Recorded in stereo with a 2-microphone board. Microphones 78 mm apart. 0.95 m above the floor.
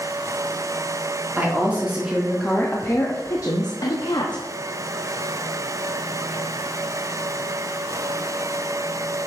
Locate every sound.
1.4 s a woman speaking: 25° right (ahead or behind), 1.7 m; by 4.4 s 75° left (ahead or behind), 1.6 m